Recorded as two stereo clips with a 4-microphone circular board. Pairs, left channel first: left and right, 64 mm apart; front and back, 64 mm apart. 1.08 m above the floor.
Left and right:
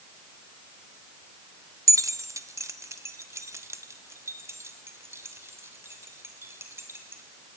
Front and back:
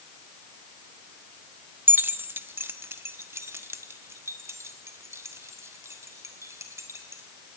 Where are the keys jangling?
120° right, 0.8 m; by 7.2 s 140° right, 3.5 m.